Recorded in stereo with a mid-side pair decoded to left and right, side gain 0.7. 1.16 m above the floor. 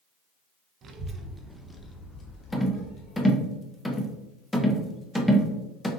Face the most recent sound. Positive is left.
turn(degrees=5)